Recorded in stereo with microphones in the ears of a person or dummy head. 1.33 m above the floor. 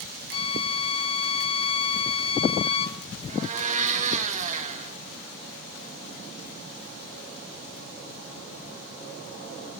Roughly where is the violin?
Left.